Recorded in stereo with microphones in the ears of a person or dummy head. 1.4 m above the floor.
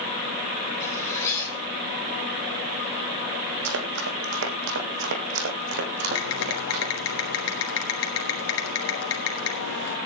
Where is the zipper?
20° left (ahead or behind), 8.5 m.